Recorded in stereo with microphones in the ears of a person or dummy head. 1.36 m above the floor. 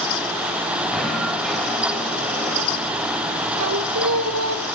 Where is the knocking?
Centre (ahead or behind), 4.5 m.